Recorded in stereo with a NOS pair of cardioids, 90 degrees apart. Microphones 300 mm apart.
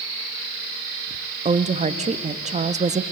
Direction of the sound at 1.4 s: 25° right.